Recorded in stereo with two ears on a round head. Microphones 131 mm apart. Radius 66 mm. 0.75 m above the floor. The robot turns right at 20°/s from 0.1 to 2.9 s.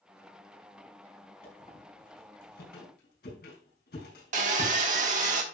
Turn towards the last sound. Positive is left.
turn(degrees=-55)  # may be behind; listen again after turning